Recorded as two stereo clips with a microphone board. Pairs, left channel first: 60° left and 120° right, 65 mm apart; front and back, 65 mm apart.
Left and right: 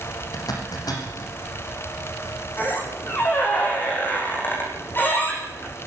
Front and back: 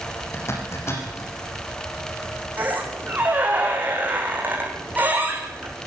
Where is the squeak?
115° left, 8.5 m.